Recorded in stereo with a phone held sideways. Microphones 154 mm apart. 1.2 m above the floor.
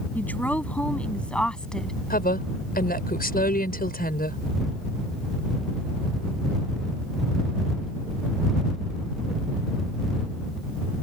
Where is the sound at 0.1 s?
10° left (ahead or behind); by 2.0 s 5° left (ahead or behind).